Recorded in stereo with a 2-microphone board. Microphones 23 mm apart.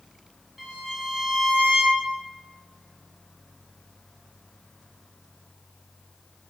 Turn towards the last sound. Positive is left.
turn(degrees=-5)  # may be behind; listen again after turning